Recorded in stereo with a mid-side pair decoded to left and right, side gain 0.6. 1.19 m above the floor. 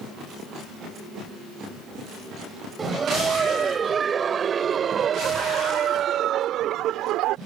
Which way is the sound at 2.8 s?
30° right.